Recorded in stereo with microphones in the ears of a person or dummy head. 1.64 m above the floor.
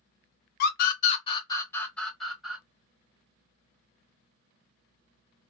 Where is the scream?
65° left (ahead or behind), 0.9 m; by 2.6 s centre (ahead or behind), 1.5 m.